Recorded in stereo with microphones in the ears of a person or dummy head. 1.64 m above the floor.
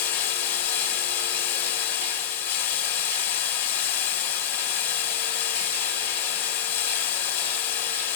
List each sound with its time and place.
0.0 s running water: 50° left (ahead or behind), 2 m